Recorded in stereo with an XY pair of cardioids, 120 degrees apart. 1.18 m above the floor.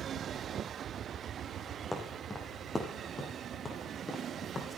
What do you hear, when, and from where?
1.9 s footsteps: 5° left, 4.5 m; by 4.8 s 25° left, 4.5 m